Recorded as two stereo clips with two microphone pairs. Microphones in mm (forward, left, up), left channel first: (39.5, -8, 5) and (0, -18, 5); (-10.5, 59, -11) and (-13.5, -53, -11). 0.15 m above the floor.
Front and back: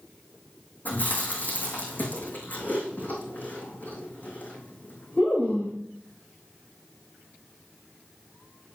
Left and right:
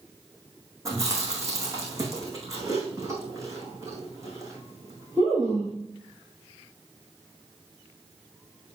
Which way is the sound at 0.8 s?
30° right.